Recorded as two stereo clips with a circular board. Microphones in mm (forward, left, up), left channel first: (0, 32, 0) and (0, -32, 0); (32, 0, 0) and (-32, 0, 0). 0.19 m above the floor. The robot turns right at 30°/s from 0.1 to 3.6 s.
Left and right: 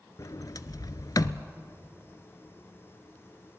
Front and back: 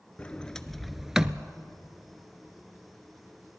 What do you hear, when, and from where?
0.2 s a sliding door: 70° left, 0.6 m; by 1.4 s 105° left, 0.6 m